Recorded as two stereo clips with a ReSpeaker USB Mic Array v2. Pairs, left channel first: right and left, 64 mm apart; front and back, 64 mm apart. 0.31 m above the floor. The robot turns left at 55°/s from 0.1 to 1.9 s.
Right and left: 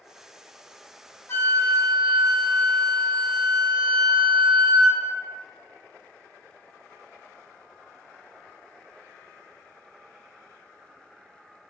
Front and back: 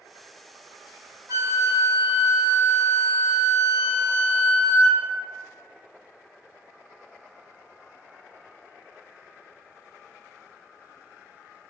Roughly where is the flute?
Behind right.